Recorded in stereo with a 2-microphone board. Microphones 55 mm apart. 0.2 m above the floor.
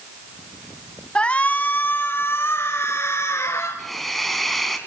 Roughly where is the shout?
Centre.